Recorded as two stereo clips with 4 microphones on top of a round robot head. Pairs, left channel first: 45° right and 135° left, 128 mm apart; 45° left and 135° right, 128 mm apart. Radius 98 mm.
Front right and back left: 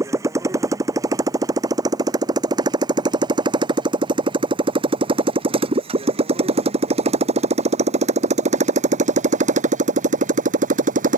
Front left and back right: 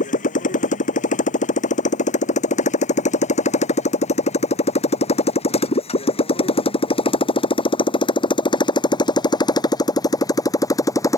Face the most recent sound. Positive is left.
turn(degrees=110)